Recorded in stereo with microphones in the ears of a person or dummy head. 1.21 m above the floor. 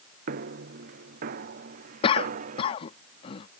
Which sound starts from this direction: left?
A cough, at 2.0 s.